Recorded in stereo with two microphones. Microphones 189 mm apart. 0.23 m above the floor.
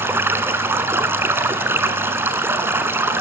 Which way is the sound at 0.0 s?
15° right (ahead or behind).